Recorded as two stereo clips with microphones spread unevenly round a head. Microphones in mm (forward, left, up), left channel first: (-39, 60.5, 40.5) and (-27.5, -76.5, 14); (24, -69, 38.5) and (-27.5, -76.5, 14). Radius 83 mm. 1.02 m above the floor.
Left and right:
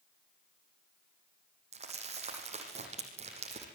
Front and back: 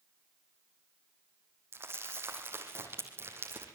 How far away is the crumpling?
About 7.5 m.